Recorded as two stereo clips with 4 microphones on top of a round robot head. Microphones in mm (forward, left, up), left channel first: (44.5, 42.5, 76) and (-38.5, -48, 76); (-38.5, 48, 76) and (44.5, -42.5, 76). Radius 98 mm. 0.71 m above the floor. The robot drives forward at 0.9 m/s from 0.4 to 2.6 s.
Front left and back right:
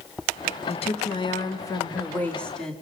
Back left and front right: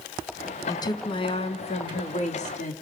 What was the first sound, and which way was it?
A woman speaking, 75° left.